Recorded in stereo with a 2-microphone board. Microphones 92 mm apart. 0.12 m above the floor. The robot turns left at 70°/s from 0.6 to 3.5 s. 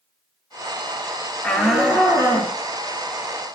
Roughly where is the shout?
Ahead.